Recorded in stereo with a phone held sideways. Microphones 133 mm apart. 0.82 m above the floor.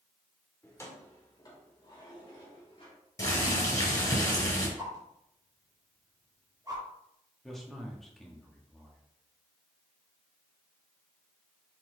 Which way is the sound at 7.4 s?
Centre (ahead or behind).